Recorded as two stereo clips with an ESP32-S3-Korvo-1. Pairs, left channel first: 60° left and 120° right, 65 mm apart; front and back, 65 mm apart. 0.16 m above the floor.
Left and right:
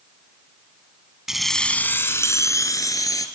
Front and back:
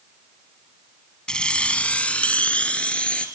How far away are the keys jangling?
About 0.9 m.